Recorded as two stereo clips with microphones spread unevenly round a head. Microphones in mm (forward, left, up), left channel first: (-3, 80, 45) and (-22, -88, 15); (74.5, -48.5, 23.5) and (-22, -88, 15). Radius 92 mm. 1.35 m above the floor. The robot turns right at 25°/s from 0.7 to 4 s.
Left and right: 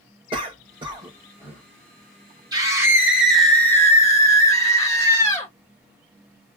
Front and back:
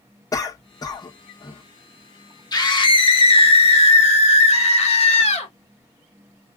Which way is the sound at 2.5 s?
25° right.